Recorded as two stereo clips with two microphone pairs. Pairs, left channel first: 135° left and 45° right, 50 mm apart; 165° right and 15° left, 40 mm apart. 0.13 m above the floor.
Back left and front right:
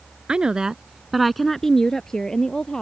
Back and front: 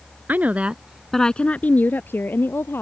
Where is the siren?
I don't hear a siren.